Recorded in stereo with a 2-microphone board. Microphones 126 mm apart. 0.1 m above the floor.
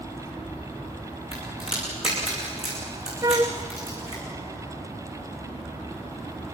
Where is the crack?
50° left (ahead or behind), 9 m.